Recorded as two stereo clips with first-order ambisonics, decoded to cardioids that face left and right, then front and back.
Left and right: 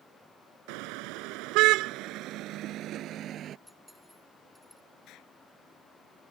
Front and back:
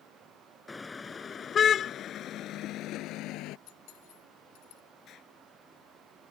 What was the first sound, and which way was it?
A car horn, 80° right.